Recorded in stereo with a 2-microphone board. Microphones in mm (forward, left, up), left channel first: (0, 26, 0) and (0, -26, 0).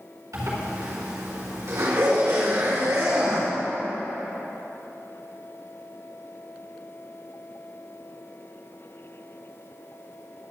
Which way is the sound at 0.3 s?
80° right.